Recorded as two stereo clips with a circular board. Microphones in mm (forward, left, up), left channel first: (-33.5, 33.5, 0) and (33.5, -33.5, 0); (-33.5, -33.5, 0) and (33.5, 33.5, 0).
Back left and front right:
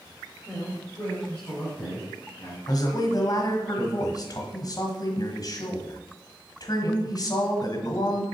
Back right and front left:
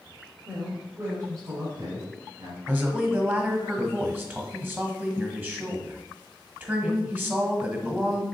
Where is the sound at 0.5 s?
60° left, 1.4 m; by 2.6 s 80° left, 3 m.